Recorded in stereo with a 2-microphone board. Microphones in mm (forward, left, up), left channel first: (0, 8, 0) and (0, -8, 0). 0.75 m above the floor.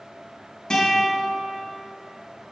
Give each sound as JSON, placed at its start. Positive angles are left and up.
{"t": 0.7, "sound": "a guitar", "side_deg": 70, "distance_m": 3.5}